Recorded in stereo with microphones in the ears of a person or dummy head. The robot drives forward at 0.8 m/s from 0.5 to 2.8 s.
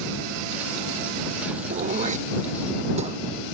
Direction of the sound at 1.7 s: 40° right (ahead or behind).